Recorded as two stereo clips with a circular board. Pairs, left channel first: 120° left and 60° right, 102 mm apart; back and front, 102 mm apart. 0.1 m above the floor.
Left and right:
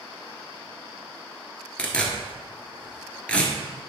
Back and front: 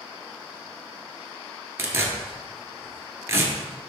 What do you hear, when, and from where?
1.8 s tearing paper: 45° left, 1.2 m